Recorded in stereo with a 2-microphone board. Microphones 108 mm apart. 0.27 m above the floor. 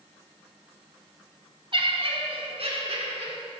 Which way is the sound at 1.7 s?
50° right (ahead or behind).